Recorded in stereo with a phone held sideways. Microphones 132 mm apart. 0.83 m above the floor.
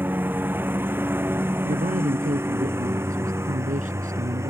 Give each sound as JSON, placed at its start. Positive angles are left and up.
{"t": 0.0, "sound": "a lawn mower", "side_deg": -15}
{"t": 1.6, "sound": "a man speaking", "side_deg": -85}